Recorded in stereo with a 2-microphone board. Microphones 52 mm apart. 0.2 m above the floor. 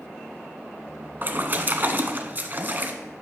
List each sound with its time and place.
1.2 s a splash: 40° right (ahead or behind), 1.0 m